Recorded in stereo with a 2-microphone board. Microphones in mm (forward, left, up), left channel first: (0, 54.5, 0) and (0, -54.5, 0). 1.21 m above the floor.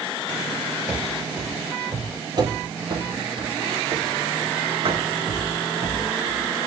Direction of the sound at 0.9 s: 10° right (ahead or behind).